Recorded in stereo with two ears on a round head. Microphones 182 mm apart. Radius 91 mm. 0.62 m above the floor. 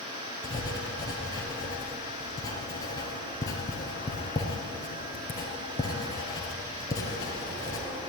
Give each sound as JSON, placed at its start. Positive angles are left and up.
{"t": 0.4, "sound": "writing", "side_deg": 20, "distance_m": 4.0}